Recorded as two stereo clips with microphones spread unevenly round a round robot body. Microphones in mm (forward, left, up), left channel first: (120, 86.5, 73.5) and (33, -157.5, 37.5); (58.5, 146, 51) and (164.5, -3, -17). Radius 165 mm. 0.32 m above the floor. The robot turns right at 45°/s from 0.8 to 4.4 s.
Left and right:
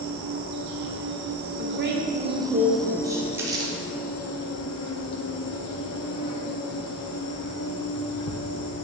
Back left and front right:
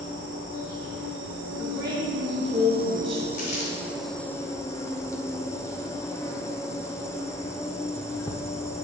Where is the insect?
105° right, 1.5 m; by 8.8 s 55° left, 1.5 m.